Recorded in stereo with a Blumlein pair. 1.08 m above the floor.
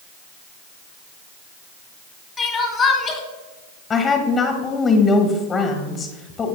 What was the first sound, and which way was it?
Crying, 20° left.